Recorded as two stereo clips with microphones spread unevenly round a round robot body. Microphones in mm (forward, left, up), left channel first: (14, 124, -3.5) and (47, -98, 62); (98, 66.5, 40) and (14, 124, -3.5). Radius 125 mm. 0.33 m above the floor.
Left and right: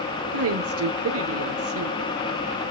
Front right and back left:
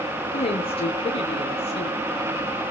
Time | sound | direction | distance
0.3 | a woman speaking | 85° right | 1.3 m